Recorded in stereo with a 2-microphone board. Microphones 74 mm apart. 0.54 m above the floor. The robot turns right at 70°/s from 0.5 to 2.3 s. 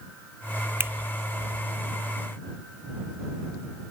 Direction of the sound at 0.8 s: 35° right (ahead or behind).